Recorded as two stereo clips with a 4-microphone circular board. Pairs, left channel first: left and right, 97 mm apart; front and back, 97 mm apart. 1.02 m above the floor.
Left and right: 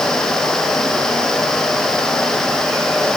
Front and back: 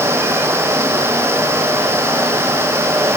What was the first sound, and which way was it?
Only background noise.